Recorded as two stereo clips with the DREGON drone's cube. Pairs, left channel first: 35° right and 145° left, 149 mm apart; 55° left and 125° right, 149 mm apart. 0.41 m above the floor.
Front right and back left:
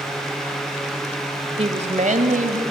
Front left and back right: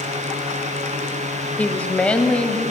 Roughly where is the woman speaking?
Behind left.